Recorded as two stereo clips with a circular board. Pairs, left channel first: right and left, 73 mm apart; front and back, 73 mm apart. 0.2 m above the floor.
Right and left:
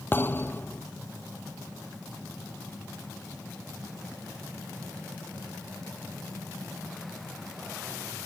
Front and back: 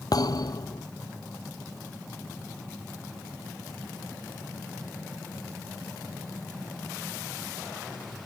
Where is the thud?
30° right.